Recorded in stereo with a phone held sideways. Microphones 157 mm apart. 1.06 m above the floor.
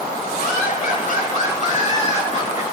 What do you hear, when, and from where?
0.4 s laughter: 65° left (ahead or behind), 7.5 m; by 2.6 s 45° left (ahead or behind), 6 m